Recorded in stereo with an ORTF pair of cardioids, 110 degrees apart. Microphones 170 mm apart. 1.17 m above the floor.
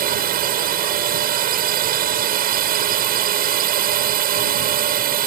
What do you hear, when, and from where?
0.0 s a drone: 60° right